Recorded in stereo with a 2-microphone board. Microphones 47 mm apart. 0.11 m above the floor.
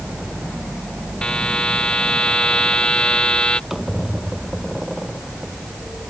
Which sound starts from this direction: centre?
A squeak, at 3.7 s.